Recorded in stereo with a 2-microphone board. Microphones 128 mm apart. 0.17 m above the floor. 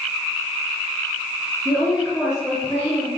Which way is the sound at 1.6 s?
5° right (ahead or behind).